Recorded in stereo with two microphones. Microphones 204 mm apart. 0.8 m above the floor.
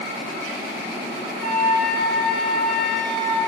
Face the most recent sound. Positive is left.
turn(degrees=-50)  # may be behind; listen again after turning